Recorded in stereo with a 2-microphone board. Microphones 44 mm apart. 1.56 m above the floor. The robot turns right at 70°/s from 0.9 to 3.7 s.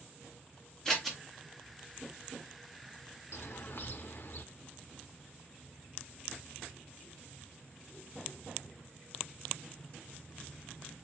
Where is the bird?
65° left (ahead or behind), 0.5 m; by 4.4 s 45° left (ahead or behind), 0.5 m.